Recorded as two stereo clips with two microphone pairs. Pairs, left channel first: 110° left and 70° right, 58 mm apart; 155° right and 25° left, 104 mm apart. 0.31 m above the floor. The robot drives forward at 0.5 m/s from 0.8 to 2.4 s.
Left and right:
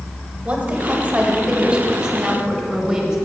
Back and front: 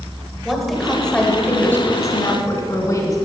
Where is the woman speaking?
65° right, 1.1 m; by 3.2 s 145° right, 1.3 m.